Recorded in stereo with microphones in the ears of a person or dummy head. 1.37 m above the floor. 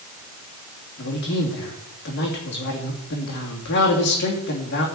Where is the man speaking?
55° left (ahead or behind), 3 m.